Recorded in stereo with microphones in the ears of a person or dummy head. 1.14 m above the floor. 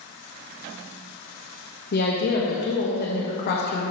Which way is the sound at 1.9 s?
50° left (ahead or behind).